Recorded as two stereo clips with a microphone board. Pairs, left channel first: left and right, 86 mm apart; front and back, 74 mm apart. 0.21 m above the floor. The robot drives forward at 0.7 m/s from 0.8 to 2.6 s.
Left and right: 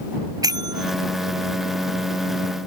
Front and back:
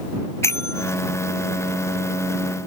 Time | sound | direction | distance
0.4 | a bell | 50° right | ?